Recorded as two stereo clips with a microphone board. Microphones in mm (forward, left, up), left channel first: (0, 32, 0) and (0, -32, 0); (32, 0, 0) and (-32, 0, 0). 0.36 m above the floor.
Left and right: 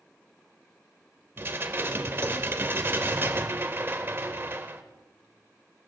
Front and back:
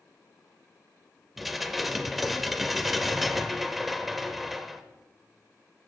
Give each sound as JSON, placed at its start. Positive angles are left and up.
{"t": 1.4, "sound": "dishes clattering", "azimuth_deg": -95, "distance_m": 0.9}